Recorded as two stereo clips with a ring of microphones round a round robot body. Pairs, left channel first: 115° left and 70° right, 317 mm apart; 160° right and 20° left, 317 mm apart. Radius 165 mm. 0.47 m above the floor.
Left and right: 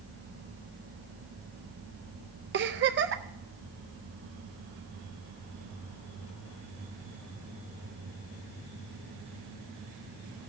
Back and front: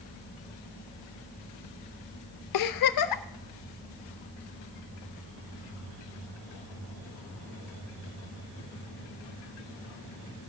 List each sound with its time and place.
2.5 s a giggle: 125° right, 0.6 m